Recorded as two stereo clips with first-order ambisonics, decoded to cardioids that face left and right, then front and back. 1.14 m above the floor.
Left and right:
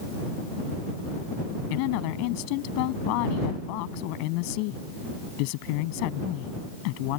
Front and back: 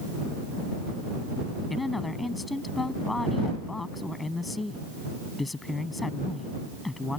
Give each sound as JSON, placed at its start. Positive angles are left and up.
{"t": 1.7, "sound": "a woman speaking", "azimuth_deg": 80}